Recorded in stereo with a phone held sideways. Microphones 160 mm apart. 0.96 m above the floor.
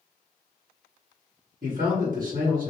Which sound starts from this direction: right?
A man speaking, at 1.6 s.